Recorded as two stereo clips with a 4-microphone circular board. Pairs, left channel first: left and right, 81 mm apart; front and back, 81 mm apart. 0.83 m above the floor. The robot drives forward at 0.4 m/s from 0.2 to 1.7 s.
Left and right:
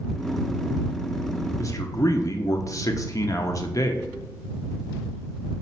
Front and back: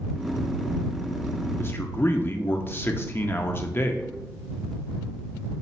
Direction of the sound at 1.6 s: 50° left.